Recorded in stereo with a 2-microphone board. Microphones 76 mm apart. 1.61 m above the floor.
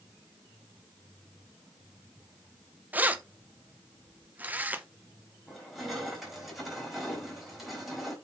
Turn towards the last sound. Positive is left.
turn(degrees=0)  # may be behind; listen again after turning